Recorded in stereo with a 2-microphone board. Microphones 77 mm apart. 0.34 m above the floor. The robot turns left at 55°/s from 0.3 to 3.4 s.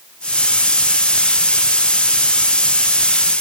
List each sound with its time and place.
Only background noise.